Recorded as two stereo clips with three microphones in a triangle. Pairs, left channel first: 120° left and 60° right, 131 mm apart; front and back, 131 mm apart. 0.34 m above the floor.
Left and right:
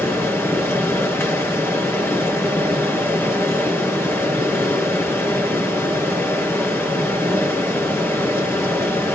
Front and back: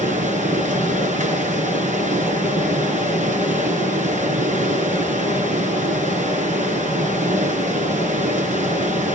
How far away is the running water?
About 4 m.